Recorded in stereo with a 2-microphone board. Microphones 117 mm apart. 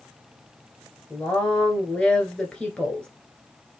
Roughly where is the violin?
I don't hear a violin.